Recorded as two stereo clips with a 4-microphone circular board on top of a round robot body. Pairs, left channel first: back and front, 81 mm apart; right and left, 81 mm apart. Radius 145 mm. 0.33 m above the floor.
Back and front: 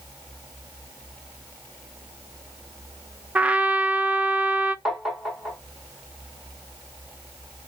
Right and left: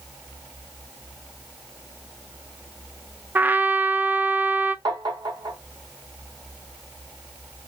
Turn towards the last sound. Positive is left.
turn(degrees=85)